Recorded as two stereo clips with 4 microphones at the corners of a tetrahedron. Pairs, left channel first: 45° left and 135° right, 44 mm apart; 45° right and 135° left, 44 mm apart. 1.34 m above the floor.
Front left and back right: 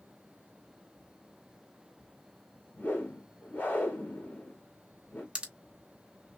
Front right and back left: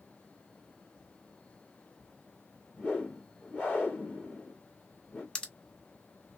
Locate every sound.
2.8 s a whoosh: straight ahead, 2 m
5.3 s a pop: 95° right, 0.9 m